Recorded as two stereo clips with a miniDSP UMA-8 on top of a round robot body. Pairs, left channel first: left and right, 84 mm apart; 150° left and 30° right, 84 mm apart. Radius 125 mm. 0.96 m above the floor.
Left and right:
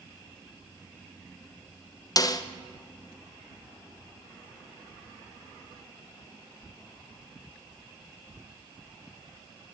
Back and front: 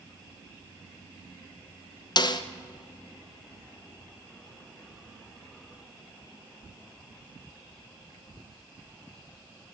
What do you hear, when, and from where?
2.2 s a snare drum: 125° left, 0.9 m